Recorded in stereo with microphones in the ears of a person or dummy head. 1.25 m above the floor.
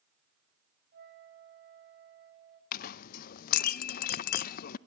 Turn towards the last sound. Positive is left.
turn(degrees=55)  # may be behind; listen again after turning